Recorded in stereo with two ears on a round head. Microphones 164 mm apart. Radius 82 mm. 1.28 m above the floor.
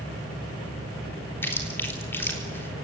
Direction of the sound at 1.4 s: 10° left (ahead or behind).